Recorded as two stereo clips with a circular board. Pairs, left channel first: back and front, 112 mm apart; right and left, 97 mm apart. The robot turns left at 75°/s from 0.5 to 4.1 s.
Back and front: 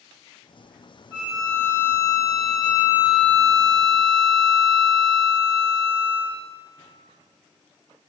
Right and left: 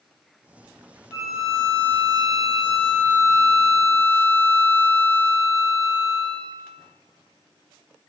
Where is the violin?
60° right, 1.4 m; by 6.4 s 75° left, 1.4 m.